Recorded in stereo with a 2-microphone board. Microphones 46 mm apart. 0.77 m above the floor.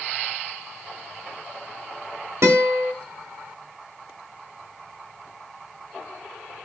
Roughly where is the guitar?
Right.